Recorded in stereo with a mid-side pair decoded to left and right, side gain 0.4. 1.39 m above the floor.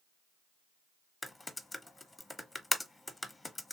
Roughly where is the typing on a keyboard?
Ahead.